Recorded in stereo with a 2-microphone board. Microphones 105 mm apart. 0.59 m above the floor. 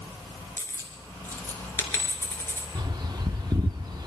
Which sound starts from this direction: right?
A bird, at 2.8 s.